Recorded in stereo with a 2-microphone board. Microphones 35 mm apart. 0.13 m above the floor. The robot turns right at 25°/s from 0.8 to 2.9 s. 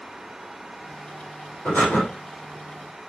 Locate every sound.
1.6 s breathing: 75° left (ahead or behind), 4.5 m; by 2.0 s 65° left (ahead or behind), 4.5 m